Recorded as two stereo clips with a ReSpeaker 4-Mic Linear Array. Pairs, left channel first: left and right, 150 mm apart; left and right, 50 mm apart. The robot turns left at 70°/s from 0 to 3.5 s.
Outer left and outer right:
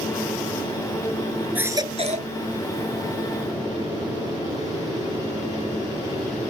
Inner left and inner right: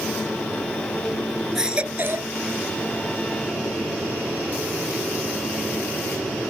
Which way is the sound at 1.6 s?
10° right.